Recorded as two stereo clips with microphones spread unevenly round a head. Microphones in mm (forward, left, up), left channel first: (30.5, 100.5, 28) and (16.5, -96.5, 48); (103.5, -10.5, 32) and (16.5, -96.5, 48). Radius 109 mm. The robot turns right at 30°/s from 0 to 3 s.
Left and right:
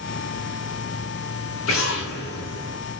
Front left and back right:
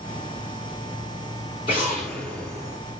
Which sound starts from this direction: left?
An explosion, at 1.7 s.